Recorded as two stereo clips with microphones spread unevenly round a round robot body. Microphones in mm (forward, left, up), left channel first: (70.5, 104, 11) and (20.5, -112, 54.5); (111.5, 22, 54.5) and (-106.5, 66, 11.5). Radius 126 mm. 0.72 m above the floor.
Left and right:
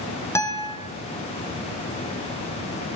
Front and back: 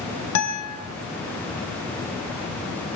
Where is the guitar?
Straight ahead, 3.5 m.